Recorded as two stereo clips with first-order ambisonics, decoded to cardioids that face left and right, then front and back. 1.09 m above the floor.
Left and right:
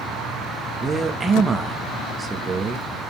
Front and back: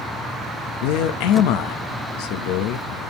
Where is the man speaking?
15° right, 0.9 m.